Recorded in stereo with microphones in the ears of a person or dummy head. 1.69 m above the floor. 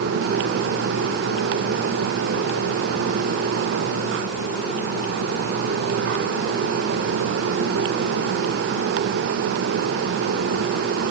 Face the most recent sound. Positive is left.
No sound to turn to.